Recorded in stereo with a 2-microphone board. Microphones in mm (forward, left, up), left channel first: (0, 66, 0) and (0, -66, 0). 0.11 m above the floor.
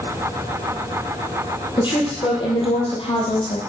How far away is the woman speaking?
About 3.5 m.